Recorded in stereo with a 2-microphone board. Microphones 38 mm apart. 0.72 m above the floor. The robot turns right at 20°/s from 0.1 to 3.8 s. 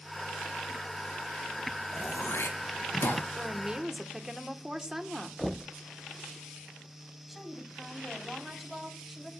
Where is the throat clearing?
80° left, 4 m; by 3.2 s 55° left (ahead or behind), 4 m.